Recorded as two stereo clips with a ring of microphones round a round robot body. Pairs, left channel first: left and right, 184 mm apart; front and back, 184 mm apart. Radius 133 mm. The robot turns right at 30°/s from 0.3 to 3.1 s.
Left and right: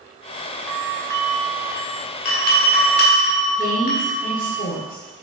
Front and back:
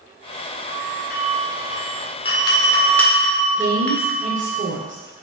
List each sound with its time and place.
0.7 s a doorbell: 10° left, 1.9 m; by 4.6 s 85° left, 1.9 m
3.6 s a woman speaking: 135° left, 1.3 m